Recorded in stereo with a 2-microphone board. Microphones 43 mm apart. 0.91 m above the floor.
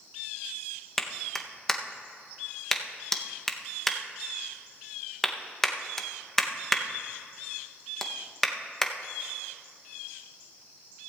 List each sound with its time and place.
1.0 s a clap: 10° left (ahead or behind), 0.6 m